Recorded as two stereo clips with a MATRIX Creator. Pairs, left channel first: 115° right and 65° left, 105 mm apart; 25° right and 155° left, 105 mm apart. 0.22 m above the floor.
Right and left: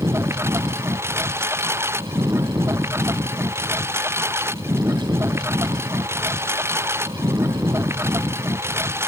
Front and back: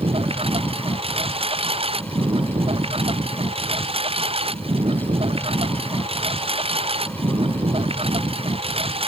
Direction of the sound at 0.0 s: 135° left.